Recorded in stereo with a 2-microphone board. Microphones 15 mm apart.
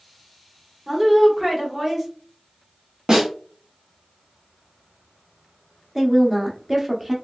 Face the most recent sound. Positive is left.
turn(degrees=-15)  # may be behind; listen again after turning